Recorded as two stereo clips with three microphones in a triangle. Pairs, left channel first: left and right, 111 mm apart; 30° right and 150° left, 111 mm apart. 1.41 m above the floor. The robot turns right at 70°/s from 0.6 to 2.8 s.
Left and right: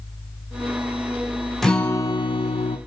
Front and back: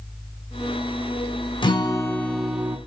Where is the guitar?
Straight ahead, 0.6 m; by 2.8 s 85° left, 0.6 m.